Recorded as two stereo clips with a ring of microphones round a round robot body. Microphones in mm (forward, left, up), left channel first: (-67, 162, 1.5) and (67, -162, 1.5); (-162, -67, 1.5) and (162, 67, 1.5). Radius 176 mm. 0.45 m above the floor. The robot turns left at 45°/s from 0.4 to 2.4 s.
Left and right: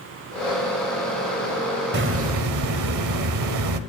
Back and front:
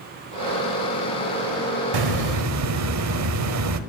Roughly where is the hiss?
Ahead.